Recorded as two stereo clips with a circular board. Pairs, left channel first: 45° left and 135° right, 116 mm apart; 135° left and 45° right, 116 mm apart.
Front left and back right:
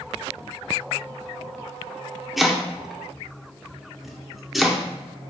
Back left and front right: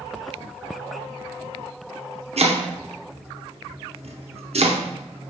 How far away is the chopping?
About 0.6 m.